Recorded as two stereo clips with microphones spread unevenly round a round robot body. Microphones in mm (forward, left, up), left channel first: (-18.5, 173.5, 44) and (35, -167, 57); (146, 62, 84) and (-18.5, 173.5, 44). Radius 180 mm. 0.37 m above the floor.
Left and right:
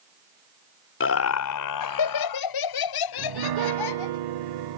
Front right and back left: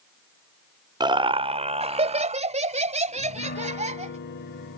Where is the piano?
80° right.